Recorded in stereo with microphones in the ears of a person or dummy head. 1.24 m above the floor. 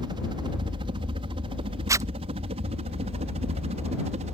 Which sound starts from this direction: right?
A helicopter, at 0.0 s.